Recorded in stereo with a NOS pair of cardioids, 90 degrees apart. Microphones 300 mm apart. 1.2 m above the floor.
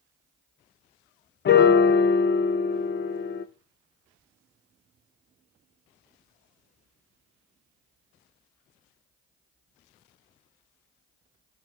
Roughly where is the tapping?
I don't hear tapping.